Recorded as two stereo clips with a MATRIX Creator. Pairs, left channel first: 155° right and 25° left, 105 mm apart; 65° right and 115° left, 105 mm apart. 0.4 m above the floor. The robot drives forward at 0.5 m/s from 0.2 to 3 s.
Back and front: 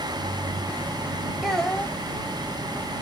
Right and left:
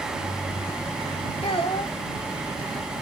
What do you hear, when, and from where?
1.4 s a child speaking: 65° right, 0.9 m; by 1.9 s 85° right, 0.9 m